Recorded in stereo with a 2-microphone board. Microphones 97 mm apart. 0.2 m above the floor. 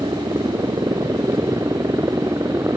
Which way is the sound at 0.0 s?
50° right (ahead or behind).